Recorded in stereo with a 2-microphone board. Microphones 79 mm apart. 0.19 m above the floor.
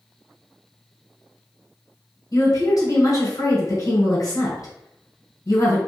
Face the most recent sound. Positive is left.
turn(degrees=50)  # may be behind; listen again after turning